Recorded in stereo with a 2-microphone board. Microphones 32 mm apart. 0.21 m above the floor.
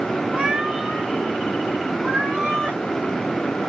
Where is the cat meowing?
20° right (ahead or behind), 0.7 m.